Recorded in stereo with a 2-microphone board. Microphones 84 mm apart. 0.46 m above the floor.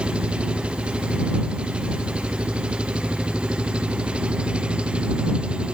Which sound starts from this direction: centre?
An engine running, at 0.0 s.